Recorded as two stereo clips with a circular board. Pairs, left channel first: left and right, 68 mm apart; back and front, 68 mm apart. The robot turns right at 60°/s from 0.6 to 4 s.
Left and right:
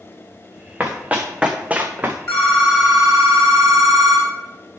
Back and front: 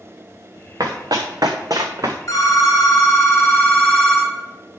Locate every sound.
0.8 s running footsteps: 25° right, 1.6 m
2.3 s a phone ringing: 135° left, 2.5 m; by 4.3 s 120° right, 2.5 m